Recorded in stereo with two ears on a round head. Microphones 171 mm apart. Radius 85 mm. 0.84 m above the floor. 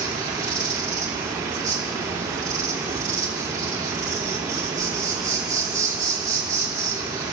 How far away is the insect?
About 3 m.